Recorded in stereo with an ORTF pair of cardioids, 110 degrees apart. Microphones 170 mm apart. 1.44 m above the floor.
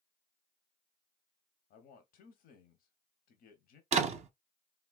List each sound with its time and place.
1.7 s a man speaking: 65° left, 0.8 m
3.9 s a door slam: 40° right, 0.7 m